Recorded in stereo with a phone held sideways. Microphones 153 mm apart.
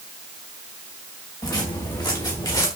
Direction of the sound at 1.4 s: 25° left (ahead or behind).